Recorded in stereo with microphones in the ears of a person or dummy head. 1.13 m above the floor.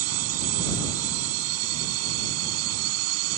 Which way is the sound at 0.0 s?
85° right.